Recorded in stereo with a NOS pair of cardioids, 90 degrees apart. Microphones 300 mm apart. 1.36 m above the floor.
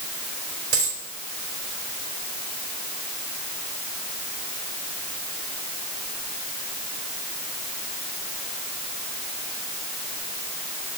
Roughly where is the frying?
I don't hear frying.